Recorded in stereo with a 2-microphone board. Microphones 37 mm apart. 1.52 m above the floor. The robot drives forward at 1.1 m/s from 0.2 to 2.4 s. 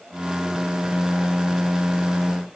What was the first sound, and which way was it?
Only background noise.